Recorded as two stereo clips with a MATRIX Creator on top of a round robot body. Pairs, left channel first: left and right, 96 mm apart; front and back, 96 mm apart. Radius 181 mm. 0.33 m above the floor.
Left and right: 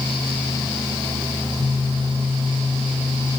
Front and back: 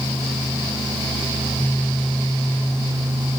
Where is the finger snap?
No finger snap in this recording.